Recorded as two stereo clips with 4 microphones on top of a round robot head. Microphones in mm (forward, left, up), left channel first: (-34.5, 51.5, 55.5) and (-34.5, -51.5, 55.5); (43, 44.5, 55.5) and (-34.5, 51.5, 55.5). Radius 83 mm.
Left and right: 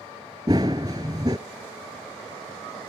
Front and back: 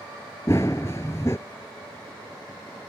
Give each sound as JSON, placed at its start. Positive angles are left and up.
{"t": 0.5, "sound": "running footsteps", "azimuth_deg": -55}